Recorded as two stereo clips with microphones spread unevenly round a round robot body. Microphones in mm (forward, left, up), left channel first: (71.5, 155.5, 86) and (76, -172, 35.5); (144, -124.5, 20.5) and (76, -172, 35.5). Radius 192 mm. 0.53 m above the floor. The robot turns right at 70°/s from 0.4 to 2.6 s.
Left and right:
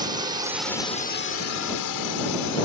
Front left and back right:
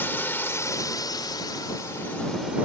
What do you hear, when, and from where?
0.0 s a drone: 20° right; by 2.7 s 135° left